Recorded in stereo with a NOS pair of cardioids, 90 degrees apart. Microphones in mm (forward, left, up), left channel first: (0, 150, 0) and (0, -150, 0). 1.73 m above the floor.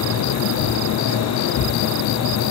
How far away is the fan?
About 0.9 m.